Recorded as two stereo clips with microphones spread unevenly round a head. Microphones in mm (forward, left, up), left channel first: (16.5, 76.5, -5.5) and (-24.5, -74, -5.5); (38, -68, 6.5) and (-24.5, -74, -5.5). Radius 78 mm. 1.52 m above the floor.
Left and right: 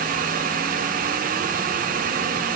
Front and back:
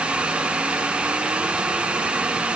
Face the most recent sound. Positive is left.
No sound to turn to.